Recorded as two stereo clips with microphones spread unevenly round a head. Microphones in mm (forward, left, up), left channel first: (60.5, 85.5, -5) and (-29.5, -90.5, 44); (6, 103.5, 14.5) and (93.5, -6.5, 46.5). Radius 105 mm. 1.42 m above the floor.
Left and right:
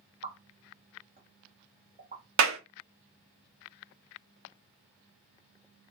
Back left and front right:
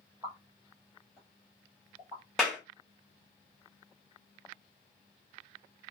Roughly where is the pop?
Right.